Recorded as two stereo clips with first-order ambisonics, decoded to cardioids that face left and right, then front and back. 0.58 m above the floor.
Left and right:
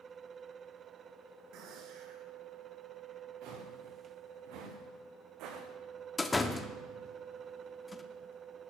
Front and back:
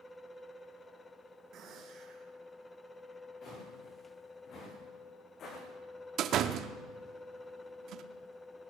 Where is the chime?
No chime in this recording.